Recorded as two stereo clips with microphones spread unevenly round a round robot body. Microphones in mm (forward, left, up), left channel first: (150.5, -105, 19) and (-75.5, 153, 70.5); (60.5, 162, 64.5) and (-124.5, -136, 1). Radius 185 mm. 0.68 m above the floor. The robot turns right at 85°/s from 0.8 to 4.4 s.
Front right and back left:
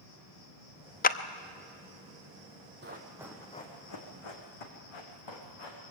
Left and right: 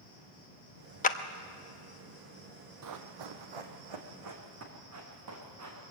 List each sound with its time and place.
0.0 s an insect: 15° right, 5.5 m; by 5.9 s 65° right, 5.5 m
1.0 s a clap: 15° right, 0.7 m; by 1.2 s 5° right, 0.7 m
2.8 s running footsteps: 170° right, 1.7 m; by 5.8 s 70° right, 4.5 m